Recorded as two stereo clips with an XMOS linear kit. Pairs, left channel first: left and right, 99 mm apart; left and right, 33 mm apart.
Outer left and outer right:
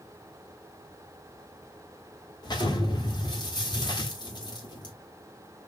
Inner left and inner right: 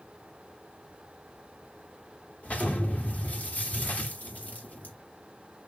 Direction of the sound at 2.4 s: 45° left (ahead or behind).